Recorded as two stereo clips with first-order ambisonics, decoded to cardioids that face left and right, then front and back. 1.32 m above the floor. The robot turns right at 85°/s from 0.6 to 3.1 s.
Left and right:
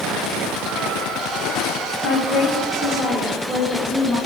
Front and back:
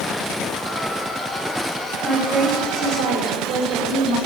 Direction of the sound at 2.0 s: 85° left.